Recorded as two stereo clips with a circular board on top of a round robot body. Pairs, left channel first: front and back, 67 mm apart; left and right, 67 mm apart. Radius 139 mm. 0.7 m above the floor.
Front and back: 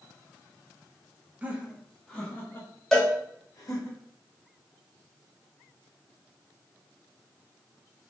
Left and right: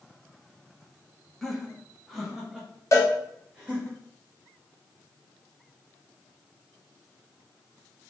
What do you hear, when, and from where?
1.4 s laughter: 170° left, 0.9 m; by 3.9 s 10° right, 1.5 m
2.9 s a cowbell: 85° left, 1.1 m